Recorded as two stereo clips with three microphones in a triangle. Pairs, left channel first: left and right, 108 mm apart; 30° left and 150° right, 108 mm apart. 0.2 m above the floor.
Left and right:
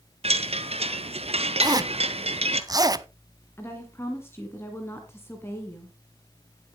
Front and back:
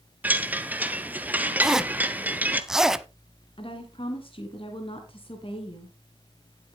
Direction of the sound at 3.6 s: 30° left.